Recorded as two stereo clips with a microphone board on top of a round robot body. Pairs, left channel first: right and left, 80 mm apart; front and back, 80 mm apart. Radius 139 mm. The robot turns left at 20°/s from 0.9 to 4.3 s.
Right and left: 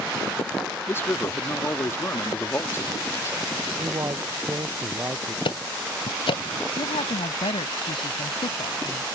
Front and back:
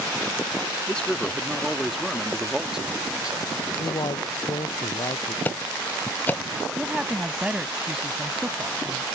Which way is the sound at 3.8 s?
40° left.